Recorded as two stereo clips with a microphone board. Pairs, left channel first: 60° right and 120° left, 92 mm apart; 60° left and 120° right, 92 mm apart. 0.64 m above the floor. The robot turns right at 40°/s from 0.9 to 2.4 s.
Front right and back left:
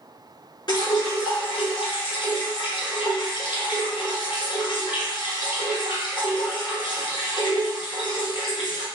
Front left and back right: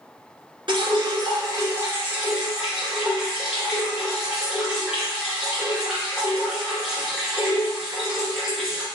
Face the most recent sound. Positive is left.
turn(degrees=-35)